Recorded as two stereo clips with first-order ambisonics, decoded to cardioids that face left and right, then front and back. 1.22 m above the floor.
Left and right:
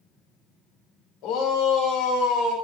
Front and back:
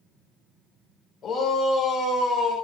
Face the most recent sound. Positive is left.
turn(degrees=70)